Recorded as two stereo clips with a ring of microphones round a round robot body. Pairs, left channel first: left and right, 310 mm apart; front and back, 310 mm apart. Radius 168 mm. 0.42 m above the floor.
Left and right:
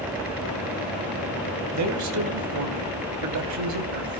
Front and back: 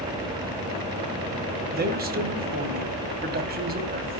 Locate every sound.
1.7 s a man speaking: 120° right, 2.5 m